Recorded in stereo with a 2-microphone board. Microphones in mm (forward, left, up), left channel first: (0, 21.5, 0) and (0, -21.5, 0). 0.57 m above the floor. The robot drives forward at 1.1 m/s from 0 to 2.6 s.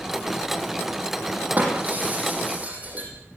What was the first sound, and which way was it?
Breaking glass, 40° right (ahead or behind).